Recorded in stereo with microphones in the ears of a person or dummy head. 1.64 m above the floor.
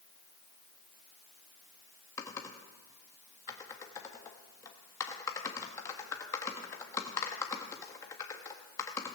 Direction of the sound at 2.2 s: 20° left (ahead or behind).